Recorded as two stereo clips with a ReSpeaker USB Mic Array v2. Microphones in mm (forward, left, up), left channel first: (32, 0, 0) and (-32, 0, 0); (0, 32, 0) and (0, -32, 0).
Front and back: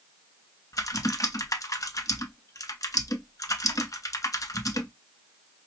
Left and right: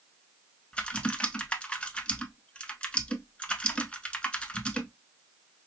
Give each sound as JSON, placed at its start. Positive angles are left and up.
{"t": 0.7, "sound": "typing on a keyboard", "azimuth_deg": 20, "distance_m": 0.6}